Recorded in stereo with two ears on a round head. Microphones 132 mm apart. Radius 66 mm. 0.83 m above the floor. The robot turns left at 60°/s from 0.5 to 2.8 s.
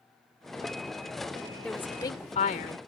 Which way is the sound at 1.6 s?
175° left.